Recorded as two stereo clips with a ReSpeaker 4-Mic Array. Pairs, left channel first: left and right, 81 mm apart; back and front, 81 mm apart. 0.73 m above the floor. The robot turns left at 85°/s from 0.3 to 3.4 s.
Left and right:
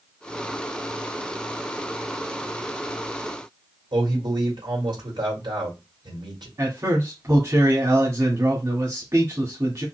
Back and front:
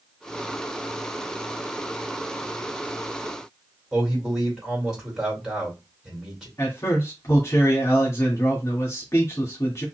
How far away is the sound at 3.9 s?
About 2.5 m.